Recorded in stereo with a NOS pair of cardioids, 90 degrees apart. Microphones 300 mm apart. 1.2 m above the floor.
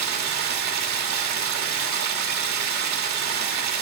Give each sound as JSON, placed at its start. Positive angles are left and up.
{"t": 0.0, "sound": "running water", "azimuth_deg": -65, "distance_m": 2.0}